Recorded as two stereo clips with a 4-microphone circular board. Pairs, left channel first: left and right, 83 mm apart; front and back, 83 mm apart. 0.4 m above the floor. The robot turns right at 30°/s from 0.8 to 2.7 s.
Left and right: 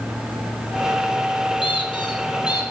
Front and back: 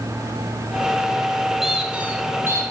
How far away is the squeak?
About 2.5 m.